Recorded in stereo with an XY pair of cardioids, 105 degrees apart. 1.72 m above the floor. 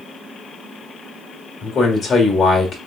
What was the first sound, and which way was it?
A man speaking, 55° left.